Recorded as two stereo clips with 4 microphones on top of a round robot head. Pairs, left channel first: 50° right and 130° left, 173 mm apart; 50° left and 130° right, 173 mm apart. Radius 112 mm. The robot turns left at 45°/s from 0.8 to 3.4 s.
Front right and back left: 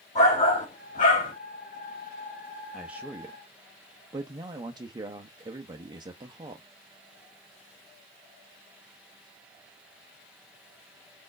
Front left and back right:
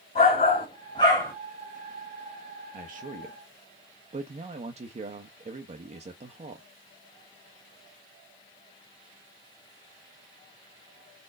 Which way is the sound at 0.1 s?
5° right.